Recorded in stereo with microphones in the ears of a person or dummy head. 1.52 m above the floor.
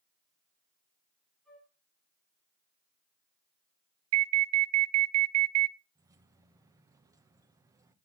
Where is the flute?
5° left (ahead or behind), 7.5 m.